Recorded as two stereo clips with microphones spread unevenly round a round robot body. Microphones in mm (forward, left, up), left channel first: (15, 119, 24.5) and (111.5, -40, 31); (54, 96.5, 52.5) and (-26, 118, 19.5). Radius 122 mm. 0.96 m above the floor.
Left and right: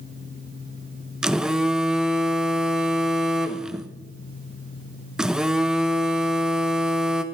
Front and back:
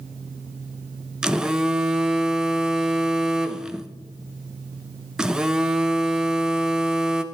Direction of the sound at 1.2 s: 145° right.